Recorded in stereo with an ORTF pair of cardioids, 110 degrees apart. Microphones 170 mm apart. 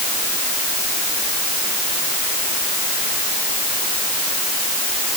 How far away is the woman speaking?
No woman speaking in this recording.